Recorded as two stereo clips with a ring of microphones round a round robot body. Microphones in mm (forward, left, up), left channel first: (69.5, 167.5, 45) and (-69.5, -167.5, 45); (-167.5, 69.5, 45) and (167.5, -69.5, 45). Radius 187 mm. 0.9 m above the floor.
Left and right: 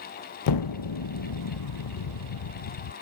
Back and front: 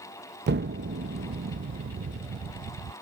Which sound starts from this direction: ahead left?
An explosion, at 0.5 s.